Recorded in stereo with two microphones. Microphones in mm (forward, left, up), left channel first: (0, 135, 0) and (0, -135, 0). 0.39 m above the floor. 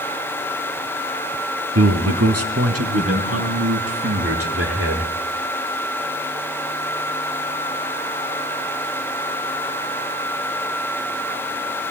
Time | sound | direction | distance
1.8 | a man speaking | 65° right (ahead or behind) | 3 m